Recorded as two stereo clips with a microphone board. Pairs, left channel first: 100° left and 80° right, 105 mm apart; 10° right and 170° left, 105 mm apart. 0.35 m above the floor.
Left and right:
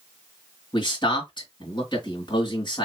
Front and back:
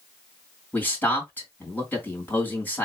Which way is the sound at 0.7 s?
60° left.